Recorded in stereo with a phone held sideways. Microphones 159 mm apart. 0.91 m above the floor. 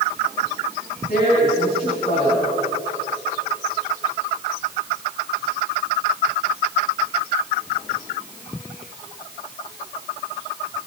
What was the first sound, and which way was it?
A woman speaking, 60° left (ahead or behind).